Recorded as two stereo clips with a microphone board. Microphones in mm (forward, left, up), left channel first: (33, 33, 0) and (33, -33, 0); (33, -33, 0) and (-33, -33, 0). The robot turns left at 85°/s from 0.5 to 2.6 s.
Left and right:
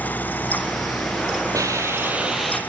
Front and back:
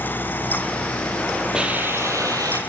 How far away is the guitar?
I don't hear a guitar.